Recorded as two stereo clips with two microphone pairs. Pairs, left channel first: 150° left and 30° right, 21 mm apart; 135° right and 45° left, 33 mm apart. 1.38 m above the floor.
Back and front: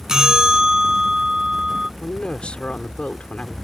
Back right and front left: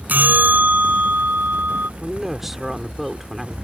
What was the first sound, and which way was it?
A bell, 35° left.